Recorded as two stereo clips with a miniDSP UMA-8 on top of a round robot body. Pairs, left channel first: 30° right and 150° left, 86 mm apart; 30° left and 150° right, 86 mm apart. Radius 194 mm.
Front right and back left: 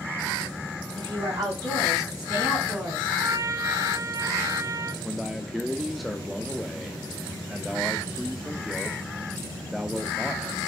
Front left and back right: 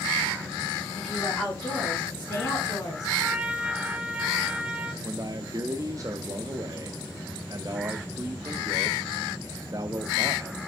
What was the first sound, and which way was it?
A woman speaking, 115° left.